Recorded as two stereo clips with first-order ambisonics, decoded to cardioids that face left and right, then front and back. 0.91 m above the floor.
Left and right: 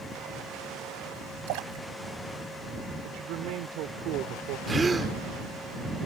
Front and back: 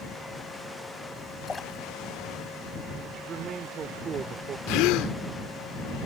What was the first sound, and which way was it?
A splash, 80° right.